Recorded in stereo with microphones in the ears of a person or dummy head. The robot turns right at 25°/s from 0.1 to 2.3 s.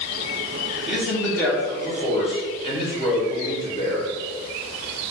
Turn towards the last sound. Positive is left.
turn(degrees=30)